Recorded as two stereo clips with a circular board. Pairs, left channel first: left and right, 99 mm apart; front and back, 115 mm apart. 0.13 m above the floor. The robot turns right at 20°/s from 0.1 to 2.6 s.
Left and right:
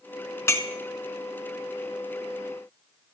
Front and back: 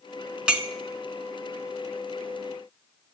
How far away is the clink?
About 0.7 m.